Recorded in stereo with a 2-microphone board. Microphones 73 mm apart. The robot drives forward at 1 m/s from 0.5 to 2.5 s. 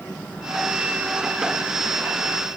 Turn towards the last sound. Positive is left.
No sound to turn to.